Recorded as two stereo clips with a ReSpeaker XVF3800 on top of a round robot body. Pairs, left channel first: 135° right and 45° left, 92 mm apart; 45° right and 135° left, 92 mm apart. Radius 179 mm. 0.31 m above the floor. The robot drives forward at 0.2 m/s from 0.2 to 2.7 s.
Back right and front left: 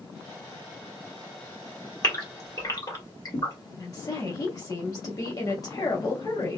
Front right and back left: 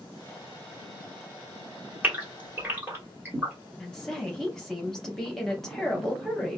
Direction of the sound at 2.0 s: 160° right.